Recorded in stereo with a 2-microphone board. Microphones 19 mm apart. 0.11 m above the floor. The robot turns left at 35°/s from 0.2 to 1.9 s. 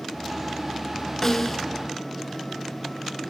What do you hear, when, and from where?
1.2 s a snare drum: 20° left (ahead or behind), 0.7 m; by 1.6 s 15° left (ahead or behind), 0.7 m